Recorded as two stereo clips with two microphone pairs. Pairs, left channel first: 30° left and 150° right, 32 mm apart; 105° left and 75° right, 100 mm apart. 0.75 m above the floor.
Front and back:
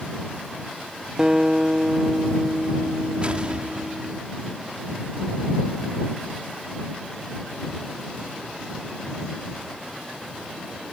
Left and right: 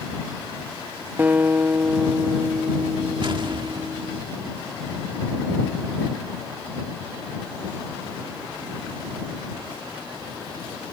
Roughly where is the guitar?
Behind right.